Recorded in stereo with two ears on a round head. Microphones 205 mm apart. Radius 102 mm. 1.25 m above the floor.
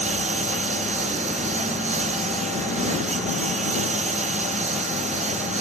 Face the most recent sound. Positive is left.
turn(degrees=-30)  # may be behind; listen again after turning